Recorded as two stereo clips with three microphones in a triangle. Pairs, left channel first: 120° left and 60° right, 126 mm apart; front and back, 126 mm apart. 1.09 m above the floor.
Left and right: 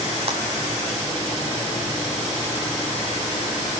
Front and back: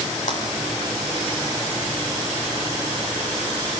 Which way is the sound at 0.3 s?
20° right.